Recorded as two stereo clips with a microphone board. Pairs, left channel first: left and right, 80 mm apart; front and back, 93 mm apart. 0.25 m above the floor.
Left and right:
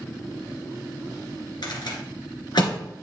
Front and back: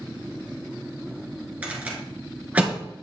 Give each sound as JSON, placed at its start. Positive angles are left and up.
{"t": 1.6, "sound": "a rattle", "azimuth_deg": 105, "distance_m": 1.9}